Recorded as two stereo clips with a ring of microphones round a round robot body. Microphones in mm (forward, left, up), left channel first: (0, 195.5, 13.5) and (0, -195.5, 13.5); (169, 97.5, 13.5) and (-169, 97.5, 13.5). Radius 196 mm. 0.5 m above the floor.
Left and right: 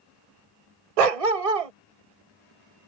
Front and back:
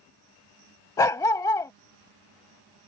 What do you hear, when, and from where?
1.0 s a dog barking: 80° right